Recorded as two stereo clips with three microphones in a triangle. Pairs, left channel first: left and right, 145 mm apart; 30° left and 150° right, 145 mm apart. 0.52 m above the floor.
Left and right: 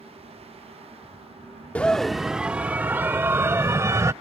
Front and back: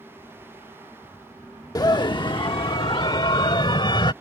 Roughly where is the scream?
Ahead left.